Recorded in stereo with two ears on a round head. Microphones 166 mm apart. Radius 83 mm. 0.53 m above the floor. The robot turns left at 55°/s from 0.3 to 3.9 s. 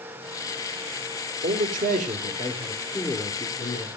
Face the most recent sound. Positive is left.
turn(degrees=135)